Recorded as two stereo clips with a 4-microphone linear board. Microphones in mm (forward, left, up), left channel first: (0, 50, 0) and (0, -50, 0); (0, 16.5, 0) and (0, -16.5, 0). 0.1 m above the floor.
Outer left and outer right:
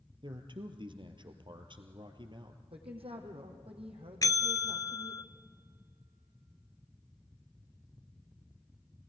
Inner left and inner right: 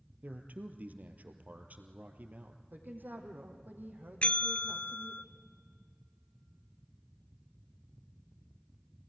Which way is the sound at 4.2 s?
40° left (ahead or behind).